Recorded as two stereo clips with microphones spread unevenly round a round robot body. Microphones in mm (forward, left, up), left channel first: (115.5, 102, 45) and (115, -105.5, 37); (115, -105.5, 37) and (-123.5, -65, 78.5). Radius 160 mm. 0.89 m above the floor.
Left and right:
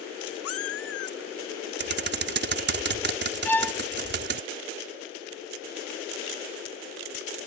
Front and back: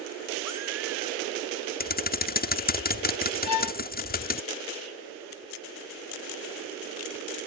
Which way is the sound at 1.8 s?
60° right.